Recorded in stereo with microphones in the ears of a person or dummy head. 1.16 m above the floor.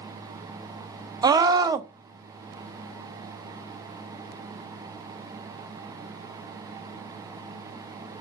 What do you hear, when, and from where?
1.2 s a scream: 20° right (ahead or behind), 0.7 m